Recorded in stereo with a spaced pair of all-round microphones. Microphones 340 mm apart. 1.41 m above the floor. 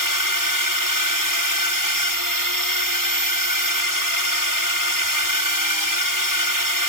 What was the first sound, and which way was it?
A drone, 70° right (ahead or behind).